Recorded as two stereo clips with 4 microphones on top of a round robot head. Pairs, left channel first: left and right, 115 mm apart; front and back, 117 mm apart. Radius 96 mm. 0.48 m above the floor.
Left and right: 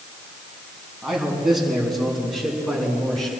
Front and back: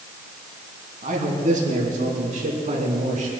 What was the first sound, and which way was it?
A man speaking, 175° right.